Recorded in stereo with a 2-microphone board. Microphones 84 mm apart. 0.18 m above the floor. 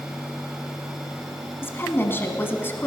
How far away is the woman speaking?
About 1.4 m.